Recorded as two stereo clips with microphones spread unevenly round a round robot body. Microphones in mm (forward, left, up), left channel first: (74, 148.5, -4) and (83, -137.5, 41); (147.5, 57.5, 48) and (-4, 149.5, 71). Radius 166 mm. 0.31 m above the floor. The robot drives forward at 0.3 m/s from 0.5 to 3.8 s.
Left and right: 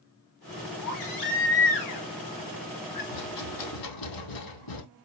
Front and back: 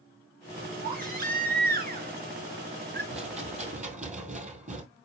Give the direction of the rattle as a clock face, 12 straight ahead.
9 o'clock.